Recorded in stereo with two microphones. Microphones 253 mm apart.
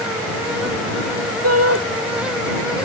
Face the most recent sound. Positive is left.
turn(degrees=-70)  # may be behind; listen again after turning